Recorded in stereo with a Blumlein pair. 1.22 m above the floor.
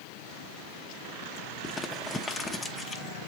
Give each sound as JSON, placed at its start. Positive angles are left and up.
{"t": 1.6, "sound": "crumpling", "azimuth_deg": 15, "distance_m": 0.8}